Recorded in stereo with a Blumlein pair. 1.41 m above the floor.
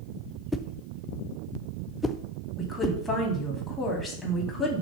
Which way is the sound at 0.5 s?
10° left.